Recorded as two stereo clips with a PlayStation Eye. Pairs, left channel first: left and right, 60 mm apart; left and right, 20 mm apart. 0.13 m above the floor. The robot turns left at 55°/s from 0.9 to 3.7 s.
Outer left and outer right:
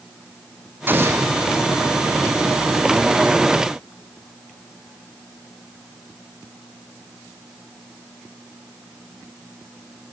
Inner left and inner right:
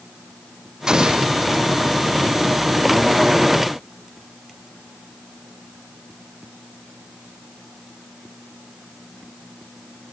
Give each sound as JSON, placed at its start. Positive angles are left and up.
{"t": 0.9, "sound": "an explosion", "side_deg": -35, "distance_m": 2.5}